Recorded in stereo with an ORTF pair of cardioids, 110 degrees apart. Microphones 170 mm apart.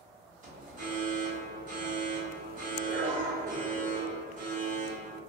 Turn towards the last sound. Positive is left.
turn(degrees=-50)